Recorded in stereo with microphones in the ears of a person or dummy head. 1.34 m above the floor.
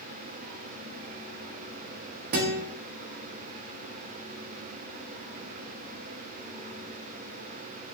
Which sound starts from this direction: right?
A guitar, at 2.3 s.